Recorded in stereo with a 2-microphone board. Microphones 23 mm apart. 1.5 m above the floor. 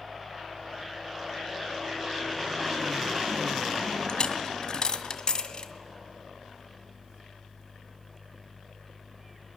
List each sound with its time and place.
4.1 s a dropped coin: 45° left (ahead or behind), 1.8 m